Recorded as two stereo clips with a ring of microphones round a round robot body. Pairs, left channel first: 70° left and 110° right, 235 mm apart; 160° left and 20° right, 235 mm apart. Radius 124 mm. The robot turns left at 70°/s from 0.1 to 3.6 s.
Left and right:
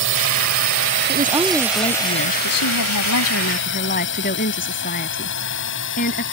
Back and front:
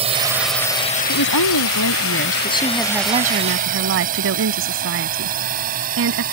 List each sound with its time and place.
0.0 s a drone: 85° right; by 6.3 s 30° left
1.1 s a woman speaking: 170° right; by 6.2 s 15° left